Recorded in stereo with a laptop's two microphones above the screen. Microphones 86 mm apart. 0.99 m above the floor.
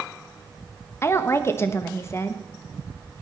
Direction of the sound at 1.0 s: 30° left (ahead or behind).